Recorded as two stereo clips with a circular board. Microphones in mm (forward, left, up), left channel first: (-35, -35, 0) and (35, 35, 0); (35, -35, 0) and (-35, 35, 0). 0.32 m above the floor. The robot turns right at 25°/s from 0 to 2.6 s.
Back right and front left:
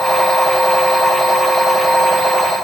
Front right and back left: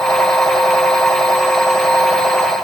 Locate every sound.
Only background noise.